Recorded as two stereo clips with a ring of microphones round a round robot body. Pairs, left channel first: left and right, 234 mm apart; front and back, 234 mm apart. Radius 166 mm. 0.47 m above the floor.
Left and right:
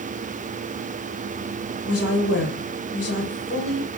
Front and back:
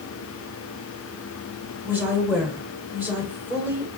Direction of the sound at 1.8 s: 100° left.